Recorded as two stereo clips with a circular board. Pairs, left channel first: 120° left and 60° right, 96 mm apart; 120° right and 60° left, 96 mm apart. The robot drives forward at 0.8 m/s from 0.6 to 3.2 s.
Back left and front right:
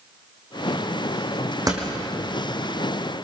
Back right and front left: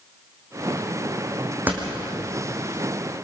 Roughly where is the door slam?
Ahead.